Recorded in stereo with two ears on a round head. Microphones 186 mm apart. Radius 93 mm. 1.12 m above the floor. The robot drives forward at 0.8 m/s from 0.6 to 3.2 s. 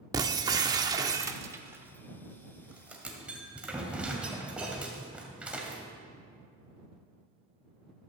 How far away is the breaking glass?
About 0.7 m.